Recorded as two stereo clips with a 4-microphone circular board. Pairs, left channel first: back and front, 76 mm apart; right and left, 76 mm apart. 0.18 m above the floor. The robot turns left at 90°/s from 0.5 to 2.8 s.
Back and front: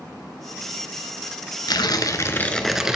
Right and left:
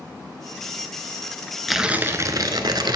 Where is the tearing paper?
Straight behind, 0.6 m; by 3.0 s 80° left, 0.6 m.